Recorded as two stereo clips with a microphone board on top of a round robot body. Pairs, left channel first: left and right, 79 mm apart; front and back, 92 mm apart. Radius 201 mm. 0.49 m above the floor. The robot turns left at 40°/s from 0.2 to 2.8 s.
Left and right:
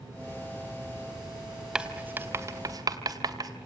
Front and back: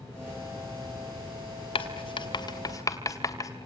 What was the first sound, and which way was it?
Writing, 10° right.